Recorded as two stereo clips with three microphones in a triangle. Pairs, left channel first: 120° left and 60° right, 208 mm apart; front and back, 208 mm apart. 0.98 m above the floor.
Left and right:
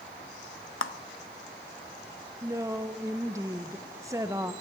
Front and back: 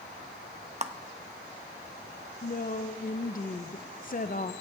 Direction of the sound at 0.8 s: 125° left.